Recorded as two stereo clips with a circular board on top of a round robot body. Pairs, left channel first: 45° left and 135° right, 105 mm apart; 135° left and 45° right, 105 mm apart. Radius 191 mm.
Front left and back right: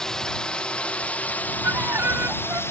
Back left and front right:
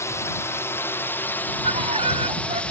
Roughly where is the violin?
Ahead right.